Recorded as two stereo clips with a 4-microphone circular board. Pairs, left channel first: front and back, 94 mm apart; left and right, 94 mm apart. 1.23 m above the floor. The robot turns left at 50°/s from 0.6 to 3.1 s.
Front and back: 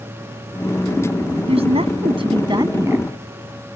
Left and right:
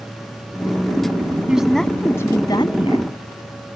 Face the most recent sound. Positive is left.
turn(degrees=110)